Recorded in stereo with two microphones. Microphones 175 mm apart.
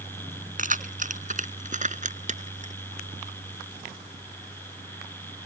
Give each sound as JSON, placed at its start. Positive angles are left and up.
{"t": 0.6, "sound": "keys jangling", "side_deg": -50}